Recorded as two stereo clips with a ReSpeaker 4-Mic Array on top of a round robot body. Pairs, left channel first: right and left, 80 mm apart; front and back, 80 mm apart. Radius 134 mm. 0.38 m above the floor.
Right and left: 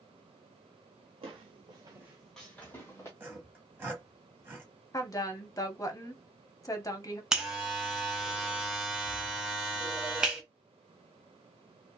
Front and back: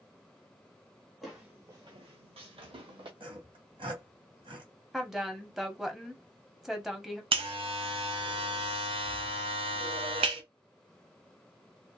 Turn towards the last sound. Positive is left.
turn(degrees=175)